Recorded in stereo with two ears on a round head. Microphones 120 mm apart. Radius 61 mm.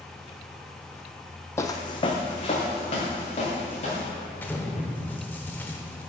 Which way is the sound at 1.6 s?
20° left (ahead or behind).